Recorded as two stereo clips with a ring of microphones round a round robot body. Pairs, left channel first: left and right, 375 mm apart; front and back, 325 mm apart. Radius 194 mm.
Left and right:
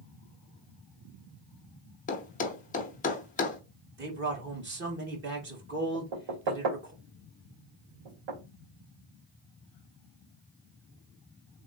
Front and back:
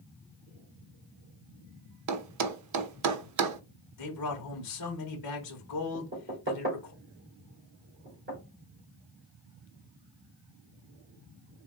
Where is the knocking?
115° right, 2.5 m.